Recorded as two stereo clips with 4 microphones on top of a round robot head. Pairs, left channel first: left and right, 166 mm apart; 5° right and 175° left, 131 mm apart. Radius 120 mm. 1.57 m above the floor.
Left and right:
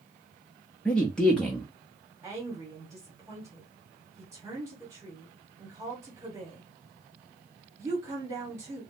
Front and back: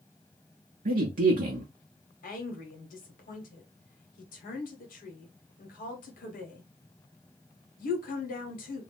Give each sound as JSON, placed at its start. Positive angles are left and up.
{"t": 0.8, "sound": "a man speaking", "azimuth_deg": 175, "distance_m": 0.6}
{"t": 2.2, "sound": "a woman speaking", "azimuth_deg": -15, "distance_m": 1.1}